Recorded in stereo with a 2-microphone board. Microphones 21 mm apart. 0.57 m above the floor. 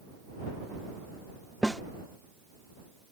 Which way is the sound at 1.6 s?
30° left (ahead or behind).